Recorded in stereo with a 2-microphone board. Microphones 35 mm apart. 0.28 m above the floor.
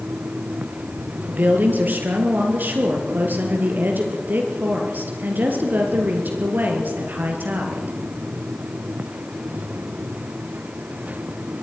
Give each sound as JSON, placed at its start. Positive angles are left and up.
{"t": 1.3, "sound": "a woman speaking", "side_deg": -60, "distance_m": 4.5}